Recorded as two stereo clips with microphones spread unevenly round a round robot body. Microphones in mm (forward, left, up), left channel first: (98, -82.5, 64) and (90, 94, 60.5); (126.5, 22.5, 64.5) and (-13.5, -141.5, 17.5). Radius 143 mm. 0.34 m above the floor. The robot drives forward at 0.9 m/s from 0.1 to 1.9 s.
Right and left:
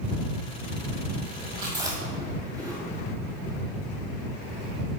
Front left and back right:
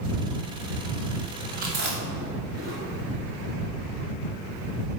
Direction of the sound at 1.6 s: 165° left.